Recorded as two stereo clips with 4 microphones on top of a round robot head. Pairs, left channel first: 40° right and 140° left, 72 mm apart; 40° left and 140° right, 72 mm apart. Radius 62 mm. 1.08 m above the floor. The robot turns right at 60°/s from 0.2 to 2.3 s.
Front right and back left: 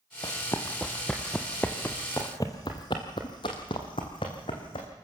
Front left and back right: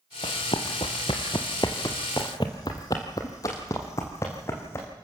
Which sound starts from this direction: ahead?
Running footsteps, at 0.2 s.